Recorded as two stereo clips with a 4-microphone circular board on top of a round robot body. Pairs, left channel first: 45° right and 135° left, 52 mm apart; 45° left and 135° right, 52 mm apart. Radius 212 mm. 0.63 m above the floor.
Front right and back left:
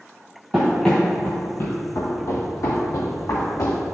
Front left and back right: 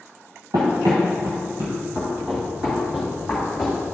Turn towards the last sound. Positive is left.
turn(degrees=-50)